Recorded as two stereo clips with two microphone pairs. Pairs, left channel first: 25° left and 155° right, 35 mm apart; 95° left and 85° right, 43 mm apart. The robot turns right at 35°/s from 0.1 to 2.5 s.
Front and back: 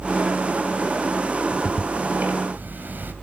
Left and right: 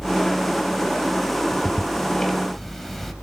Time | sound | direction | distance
1.5 | ticking | 140° left | 3 m